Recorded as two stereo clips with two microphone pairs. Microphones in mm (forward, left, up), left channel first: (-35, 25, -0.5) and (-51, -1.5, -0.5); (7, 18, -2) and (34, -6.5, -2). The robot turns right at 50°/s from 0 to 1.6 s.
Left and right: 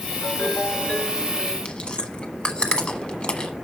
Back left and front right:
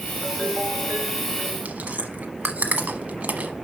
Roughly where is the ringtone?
Left.